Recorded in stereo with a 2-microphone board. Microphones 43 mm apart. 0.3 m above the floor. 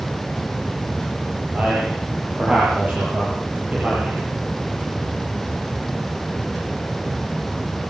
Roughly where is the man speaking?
Right.